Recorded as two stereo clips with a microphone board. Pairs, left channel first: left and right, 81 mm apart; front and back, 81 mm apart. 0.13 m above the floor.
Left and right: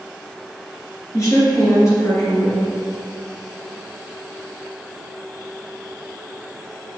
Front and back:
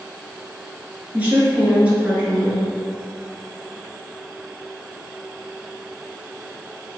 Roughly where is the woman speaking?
Behind left.